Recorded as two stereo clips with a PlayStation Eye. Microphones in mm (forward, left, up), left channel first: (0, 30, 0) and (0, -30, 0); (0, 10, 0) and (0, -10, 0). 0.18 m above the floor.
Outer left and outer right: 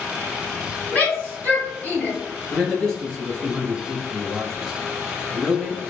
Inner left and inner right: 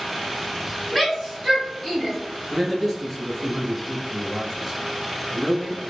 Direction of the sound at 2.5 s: 5° left (ahead or behind).